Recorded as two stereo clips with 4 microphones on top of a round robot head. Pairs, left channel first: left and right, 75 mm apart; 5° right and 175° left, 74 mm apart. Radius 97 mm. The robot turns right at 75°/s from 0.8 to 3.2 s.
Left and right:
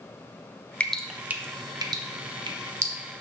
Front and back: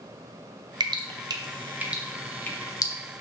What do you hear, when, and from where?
0.8 s dripping: 165° left, 0.8 m; by 2.9 s 35° right, 0.8 m